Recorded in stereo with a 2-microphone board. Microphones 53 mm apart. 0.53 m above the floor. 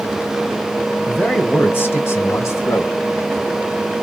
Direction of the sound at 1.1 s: 25° left (ahead or behind).